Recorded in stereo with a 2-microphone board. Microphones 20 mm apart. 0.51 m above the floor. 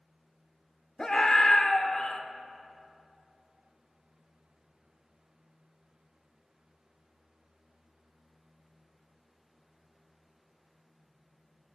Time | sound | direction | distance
1.0 | a scream | 30° left (ahead or behind) | 1.6 m